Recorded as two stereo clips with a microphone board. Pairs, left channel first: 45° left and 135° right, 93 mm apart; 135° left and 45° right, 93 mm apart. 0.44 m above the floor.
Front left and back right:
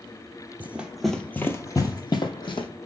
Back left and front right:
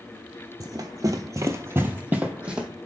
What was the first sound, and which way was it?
Running footsteps, 70° right.